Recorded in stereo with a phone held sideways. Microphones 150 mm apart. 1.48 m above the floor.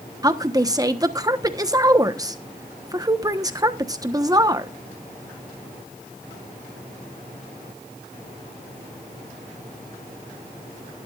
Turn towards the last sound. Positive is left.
turn(degrees=-25)  # may be behind; listen again after turning